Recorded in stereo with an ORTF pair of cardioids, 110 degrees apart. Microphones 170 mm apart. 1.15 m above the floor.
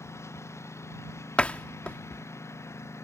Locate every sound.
0.0 s a lawn mower: 15° left
1.4 s a door slam: 5° left